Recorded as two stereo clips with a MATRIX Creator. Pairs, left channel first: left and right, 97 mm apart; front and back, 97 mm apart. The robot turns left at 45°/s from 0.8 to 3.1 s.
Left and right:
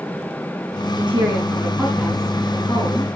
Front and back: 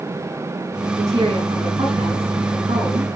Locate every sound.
1.0 s a woman speaking: 125° right, 7 m; by 3.0 s 140° left, 7 m